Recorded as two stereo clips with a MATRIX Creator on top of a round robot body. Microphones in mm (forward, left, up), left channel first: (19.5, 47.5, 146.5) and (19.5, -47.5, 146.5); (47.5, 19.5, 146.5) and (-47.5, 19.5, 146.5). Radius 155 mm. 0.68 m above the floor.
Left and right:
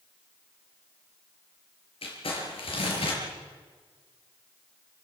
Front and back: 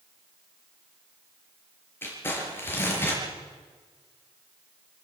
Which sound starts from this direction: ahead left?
Crumpling, at 2.0 s.